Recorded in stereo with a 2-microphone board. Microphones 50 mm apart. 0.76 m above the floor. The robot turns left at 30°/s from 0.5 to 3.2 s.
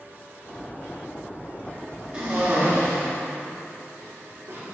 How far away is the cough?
About 1.8 m.